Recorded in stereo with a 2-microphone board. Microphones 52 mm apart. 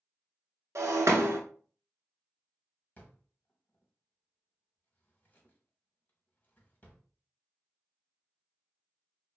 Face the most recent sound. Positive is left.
turn(degrees=30)  # may be behind; listen again after turning